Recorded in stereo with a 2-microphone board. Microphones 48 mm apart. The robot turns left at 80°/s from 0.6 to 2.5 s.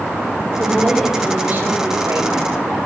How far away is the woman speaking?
About 3.5 m.